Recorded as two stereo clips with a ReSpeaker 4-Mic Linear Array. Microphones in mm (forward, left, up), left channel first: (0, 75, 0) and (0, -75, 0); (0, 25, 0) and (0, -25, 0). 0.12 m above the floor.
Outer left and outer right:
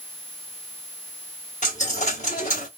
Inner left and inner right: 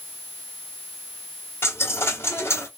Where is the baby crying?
I don't hear a baby crying.